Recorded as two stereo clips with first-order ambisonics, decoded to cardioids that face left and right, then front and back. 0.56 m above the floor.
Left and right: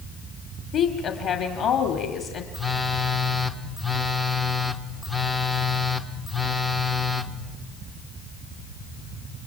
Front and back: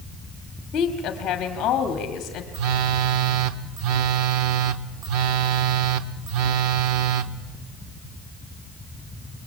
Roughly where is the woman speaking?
Ahead left.